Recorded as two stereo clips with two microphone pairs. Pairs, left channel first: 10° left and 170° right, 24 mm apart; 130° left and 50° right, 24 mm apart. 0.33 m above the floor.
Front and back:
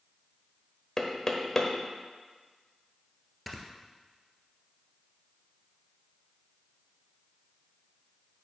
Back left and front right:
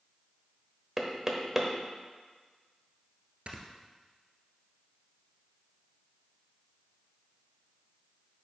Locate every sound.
1.0 s knocking: 10° right, 1.2 m
3.5 s snoring: 85° right, 1.3 m